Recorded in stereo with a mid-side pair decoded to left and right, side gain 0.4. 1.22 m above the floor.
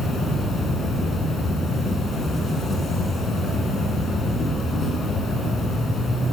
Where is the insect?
50° left, 8.5 m.